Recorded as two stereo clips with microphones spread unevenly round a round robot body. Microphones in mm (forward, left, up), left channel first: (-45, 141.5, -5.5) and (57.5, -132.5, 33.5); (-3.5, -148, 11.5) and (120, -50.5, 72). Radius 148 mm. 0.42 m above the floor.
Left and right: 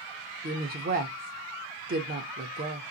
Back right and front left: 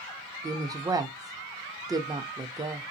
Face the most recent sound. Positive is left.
turn(degrees=-50)